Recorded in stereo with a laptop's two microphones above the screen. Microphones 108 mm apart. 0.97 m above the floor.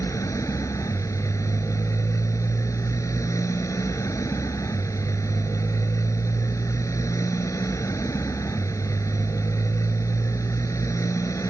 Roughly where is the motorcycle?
Left.